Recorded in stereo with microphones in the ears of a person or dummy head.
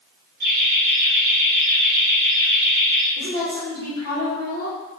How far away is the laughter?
About 0.7 m.